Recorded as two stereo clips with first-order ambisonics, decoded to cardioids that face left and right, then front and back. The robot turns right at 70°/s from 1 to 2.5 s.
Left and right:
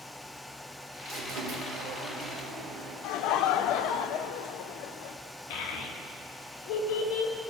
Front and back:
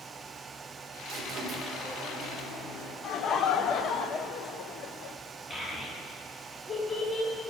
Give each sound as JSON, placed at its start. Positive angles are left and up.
{"t": 1.1, "sound": "a squeak", "azimuth_deg": -145, "distance_m": 1.6}
{"t": 3.0, "sound": "laughter", "azimuth_deg": 55, "distance_m": 0.6}
{"t": 5.5, "sound": "a child speaking", "azimuth_deg": 75, "distance_m": 1.3}